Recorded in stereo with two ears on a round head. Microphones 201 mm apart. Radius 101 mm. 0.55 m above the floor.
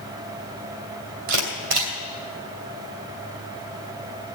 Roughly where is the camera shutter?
Right.